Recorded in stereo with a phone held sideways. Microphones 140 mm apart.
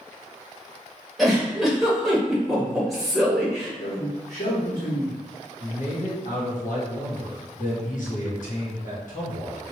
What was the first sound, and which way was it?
A giggle, centre (ahead or behind).